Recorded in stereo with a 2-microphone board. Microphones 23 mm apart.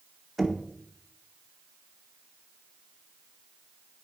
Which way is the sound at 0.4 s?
10° right (ahead or behind).